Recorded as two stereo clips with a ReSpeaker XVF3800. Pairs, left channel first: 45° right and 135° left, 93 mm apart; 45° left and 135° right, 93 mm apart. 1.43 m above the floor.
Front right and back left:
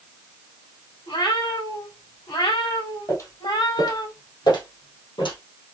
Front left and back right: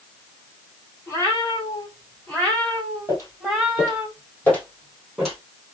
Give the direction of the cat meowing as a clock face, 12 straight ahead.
1 o'clock.